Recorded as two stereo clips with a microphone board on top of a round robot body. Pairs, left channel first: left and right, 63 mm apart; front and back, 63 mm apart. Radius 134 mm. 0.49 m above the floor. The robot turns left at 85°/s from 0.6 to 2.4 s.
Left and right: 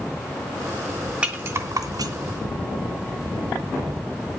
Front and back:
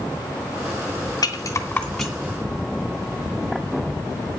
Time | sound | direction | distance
1.2 | a rattle | 20° right | 2.5 m